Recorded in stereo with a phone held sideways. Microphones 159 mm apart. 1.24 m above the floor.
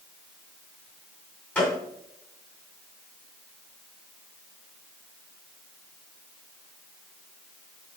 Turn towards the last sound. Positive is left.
turn(degrees=10)  # may be behind; listen again after turning